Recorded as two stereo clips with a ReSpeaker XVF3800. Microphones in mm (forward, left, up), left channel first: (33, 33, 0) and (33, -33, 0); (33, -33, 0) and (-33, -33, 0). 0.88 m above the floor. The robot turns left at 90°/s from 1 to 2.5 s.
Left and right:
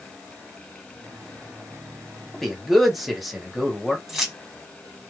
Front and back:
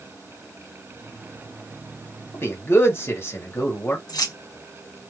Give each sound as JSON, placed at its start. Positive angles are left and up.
{"t": 2.3, "sound": "a man speaking", "azimuth_deg": 15, "distance_m": 1.2}
{"t": 4.1, "sound": "keys jangling", "azimuth_deg": 0, "distance_m": 1.0}